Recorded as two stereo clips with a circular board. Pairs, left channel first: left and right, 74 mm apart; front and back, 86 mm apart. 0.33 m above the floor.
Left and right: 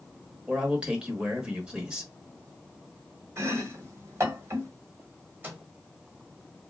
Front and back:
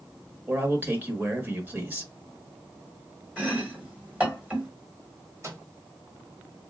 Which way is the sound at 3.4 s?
115° right.